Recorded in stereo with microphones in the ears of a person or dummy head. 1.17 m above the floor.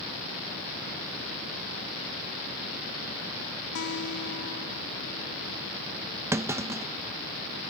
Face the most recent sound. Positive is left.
turn(degrees=-10)  # may be behind; listen again after turning